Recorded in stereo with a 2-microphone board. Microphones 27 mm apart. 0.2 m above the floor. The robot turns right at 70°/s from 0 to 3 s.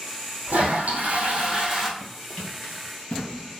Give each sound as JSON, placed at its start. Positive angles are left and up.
{"t": 0.5, "sound": "a toilet flushing", "azimuth_deg": -105, "distance_m": 1.4}
{"t": 2.0, "sound": "running footsteps", "side_deg": 10, "distance_m": 1.6}